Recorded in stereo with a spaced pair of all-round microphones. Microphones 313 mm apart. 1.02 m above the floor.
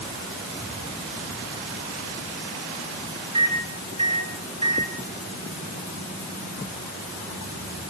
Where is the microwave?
65° right (ahead or behind), 9.5 m.